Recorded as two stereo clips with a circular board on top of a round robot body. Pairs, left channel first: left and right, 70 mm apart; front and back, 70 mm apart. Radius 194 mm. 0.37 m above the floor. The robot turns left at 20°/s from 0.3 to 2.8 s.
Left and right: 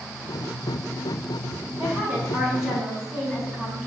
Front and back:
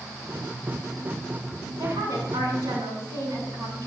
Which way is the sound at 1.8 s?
155° right.